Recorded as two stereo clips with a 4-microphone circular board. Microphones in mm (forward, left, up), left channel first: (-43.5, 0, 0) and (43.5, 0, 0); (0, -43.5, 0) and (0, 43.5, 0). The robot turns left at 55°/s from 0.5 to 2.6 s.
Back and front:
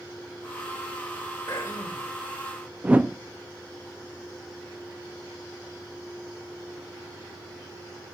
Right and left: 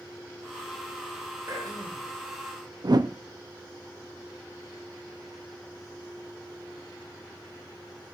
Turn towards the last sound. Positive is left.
turn(degrees=70)